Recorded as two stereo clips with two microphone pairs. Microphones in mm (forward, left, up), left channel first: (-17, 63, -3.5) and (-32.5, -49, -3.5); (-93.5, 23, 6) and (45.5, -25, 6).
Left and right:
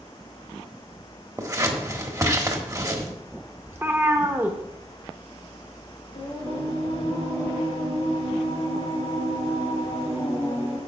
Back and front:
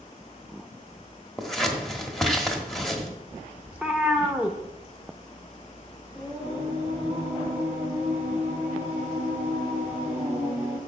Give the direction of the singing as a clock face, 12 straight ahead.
10 o'clock.